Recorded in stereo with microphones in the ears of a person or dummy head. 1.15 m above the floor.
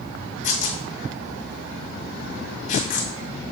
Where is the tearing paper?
45° left (ahead or behind), 1.7 m.